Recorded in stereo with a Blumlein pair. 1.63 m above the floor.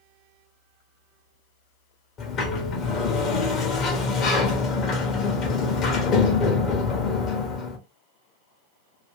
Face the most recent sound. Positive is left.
turn(degrees=30)